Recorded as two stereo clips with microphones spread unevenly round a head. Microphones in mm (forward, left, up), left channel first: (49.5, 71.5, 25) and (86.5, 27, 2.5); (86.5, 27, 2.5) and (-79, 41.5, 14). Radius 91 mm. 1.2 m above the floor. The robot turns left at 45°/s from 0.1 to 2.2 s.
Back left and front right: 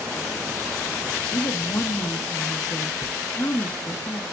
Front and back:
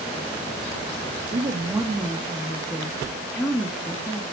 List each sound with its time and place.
1.3 s a woman speaking: 125° left, 2.0 m; by 4.2 s 85° left, 2.0 m